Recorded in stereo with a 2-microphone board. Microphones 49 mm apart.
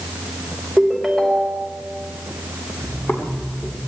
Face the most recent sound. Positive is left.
turn(degrees=50)  # may be behind; listen again after turning